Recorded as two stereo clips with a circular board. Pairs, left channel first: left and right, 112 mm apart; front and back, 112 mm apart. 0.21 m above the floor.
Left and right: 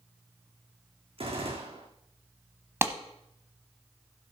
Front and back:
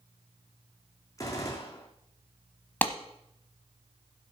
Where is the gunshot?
60° right, 2.5 m.